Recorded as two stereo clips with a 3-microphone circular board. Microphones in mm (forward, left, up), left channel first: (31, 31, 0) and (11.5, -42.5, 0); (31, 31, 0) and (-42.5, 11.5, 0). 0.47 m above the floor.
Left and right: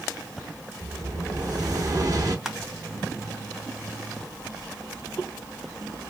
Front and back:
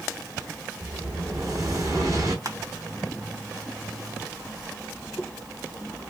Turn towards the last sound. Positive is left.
turn(degrees=175)